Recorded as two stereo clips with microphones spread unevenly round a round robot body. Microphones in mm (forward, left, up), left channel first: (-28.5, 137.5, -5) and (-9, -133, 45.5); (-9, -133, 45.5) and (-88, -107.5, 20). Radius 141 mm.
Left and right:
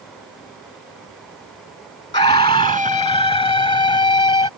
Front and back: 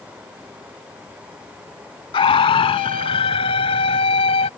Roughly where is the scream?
Ahead left.